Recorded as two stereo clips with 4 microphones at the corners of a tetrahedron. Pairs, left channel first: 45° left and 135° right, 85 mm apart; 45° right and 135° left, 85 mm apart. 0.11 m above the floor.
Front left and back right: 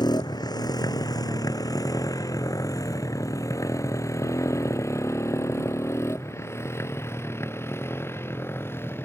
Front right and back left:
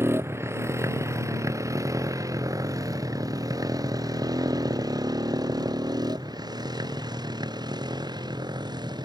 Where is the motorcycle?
75° left; by 9.1 s 105° left.